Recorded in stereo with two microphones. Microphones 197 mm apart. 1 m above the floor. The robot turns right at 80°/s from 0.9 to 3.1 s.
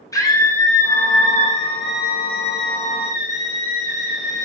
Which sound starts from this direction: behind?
A scream, at 0.1 s.